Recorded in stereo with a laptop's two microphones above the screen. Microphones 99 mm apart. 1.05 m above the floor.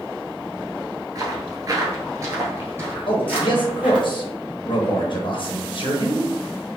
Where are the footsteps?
40° right (ahead or behind), 1.3 m; by 4.1 s 15° right (ahead or behind), 1.9 m.